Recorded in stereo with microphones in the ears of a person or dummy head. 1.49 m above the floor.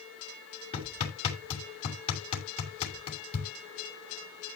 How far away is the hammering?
About 6.5 m.